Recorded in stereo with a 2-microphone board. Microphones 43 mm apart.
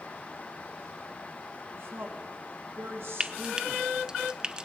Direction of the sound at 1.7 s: 60° right (ahead or behind).